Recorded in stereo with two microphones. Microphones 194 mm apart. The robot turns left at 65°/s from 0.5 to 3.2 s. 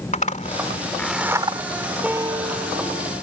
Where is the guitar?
5° right; by 3.1 s 75° right.